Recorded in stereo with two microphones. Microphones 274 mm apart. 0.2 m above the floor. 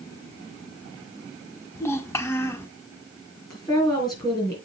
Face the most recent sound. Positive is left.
turn(degrees=15)  # may be behind; listen again after turning